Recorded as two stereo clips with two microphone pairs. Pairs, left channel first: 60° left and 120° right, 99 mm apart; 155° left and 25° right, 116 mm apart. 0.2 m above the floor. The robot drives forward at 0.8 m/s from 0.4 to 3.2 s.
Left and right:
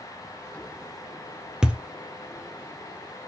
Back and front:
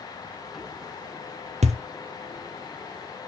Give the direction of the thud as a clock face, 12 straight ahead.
1 o'clock.